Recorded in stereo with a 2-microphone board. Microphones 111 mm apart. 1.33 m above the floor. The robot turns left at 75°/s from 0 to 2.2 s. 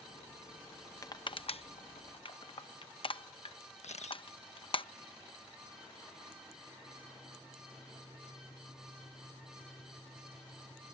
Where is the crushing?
30° left (ahead or behind); by 4.8 s 50° left (ahead or behind).